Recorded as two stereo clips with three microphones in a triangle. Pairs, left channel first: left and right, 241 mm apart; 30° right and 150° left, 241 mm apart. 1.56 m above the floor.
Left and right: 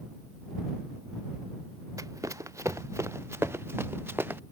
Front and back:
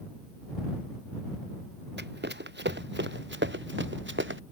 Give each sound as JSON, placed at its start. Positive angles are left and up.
{"t": 2.0, "sound": "running footsteps", "azimuth_deg": -165}